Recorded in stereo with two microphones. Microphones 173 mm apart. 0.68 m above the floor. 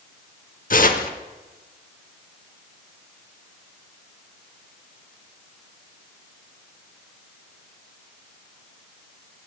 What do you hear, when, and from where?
0.7 s tearing paper: 55° left (ahead or behind), 0.8 m